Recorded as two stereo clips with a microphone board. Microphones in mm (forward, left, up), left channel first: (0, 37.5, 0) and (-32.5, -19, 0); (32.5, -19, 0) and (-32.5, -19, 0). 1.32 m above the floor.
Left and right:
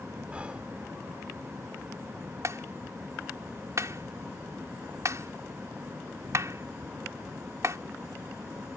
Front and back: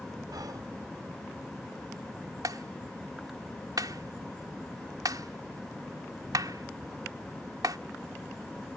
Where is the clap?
160° right.